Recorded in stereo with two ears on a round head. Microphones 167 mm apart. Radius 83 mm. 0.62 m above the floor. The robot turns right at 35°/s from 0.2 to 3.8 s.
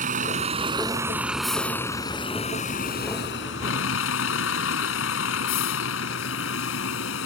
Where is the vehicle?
45° right; by 7.2 s 80° left.